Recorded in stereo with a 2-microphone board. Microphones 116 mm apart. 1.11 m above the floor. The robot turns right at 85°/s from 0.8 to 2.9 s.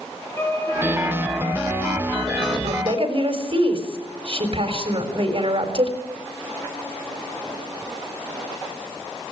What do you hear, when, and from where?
0.4 s a violin: 20° left, 4.5 m; by 2.5 s 170° left, 4.5 m
2.6 s a woman speaking: 75° right (ahead or behind), 4 m; by 6.0 s 55° right (ahead or behind), 4 m